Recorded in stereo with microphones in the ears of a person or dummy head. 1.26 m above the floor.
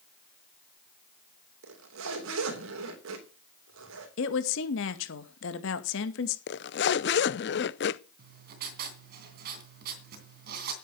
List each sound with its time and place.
1.6 s a zipper: 85° right, 3 m
4.2 s a woman speaking: 75° left (ahead or behind), 2.0 m
6.5 s a zipper: 50° left (ahead or behind), 0.5 m
8.2 s writing: 55° right (ahead or behind), 2.5 m